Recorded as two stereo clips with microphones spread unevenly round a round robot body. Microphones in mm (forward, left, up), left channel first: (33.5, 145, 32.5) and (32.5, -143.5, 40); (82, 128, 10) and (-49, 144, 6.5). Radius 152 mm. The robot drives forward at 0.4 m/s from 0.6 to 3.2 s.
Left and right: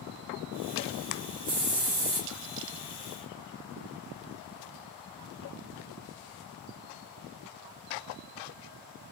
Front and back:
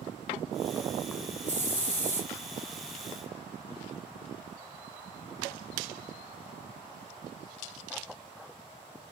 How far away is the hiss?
About 1.7 m.